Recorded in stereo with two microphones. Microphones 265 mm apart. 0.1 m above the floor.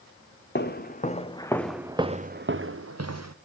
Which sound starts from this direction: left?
Footsteps, at 0.6 s.